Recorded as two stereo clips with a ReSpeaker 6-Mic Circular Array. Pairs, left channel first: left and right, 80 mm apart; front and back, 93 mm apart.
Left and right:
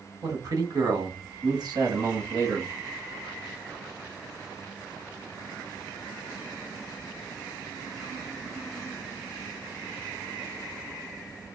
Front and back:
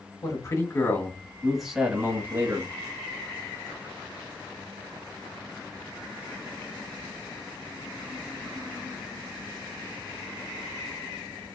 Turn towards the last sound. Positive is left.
turn(degrees=-135)